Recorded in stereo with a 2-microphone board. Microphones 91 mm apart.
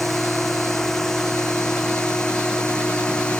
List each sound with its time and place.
0.0 s a drone: centre (ahead or behind); by 3.4 s 10° left (ahead or behind)